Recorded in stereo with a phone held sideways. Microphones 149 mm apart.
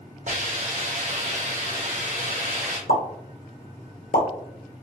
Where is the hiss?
55° right (ahead or behind), 1.7 m.